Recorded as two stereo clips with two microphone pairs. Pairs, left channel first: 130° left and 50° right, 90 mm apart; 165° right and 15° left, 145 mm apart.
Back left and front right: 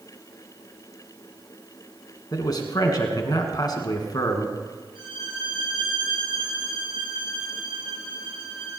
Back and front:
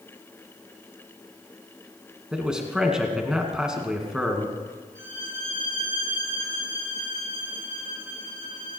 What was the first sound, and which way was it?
A man speaking, 100° left.